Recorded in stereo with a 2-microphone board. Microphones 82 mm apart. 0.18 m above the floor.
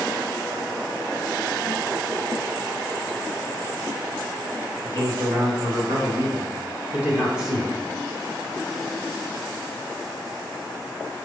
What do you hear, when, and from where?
4.8 s a man speaking: 55° right (ahead or behind), 2 m; by 7.7 s centre (ahead or behind), 1.3 m